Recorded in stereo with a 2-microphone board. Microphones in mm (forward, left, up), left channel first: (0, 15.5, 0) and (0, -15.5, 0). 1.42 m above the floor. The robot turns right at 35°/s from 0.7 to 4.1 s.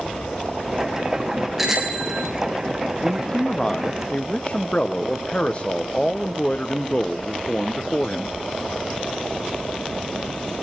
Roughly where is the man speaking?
Ahead.